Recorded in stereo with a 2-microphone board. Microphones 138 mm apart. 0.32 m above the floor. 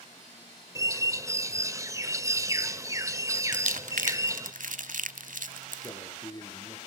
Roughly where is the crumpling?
Right.